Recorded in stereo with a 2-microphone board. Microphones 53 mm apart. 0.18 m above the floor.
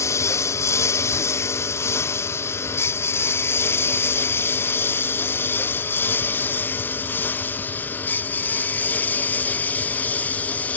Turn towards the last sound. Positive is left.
turn(degrees=25)  # may be behind; listen again after turning